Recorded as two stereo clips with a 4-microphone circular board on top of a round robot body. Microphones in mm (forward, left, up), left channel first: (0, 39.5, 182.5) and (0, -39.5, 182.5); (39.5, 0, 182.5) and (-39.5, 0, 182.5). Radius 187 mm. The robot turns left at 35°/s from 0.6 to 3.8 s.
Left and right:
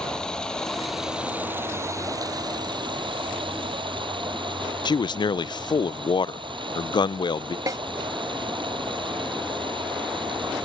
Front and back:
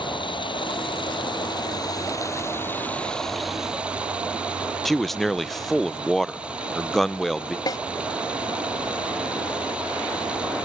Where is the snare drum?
40° right.